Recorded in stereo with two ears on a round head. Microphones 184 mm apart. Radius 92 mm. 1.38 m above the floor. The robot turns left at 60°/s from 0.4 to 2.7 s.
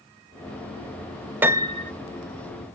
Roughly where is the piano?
Centre.